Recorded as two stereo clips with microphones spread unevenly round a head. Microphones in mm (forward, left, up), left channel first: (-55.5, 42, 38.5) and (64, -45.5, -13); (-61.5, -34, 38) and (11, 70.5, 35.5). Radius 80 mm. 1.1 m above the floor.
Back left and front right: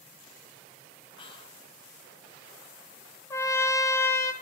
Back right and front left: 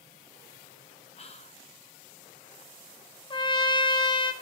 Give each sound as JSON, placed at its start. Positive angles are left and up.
{"t": 1.2, "sound": "whispering", "azimuth_deg": -150, "distance_m": 0.9}
{"t": 3.3, "sound": "a trumpet", "azimuth_deg": -130, "distance_m": 0.6}